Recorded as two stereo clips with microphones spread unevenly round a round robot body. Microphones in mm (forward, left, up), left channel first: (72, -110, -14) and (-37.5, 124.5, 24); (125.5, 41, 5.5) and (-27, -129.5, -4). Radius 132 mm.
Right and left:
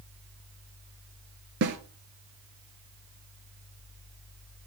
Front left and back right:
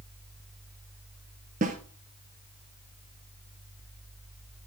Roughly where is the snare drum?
Behind.